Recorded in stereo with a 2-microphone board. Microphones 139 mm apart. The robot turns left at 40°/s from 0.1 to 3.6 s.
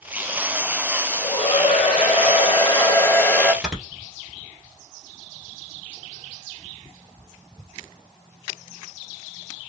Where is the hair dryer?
110° left, 1.3 m; by 3.5 s 15° left, 1.3 m.